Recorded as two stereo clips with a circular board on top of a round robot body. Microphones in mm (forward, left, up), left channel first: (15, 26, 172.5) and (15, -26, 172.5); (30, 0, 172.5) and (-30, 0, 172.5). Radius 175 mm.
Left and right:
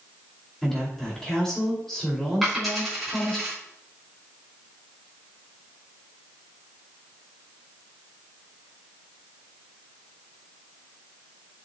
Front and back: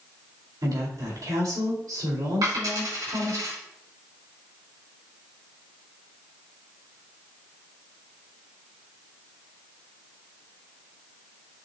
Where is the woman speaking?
170° left, 4 m.